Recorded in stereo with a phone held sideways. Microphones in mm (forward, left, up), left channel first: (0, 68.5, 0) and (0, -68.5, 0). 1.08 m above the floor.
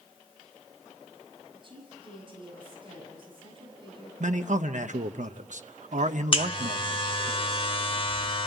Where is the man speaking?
65° right (ahead or behind), 0.7 m.